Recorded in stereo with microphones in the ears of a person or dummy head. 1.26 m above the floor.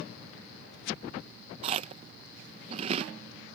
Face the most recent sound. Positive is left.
turn(degrees=-35)  # may be behind; listen again after turning